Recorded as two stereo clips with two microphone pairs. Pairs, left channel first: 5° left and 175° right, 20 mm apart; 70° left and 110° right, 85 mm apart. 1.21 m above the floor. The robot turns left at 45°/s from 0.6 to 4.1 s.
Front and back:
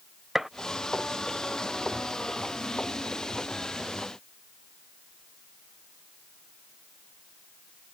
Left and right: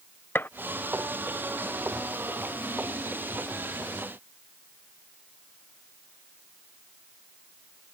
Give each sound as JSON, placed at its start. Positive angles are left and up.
{"t": 0.3, "sound": "a gunshot", "azimuth_deg": 115}